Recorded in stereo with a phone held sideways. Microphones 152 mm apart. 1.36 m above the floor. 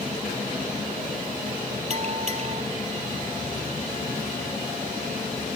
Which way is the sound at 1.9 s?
50° right (ahead or behind).